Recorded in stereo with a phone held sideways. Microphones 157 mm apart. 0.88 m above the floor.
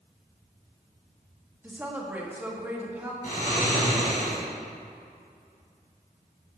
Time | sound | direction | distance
1.6 | a woman speaking | 10° right (ahead or behind) | 1.7 m
3.2 | snoring | 65° left (ahead or behind) | 3 m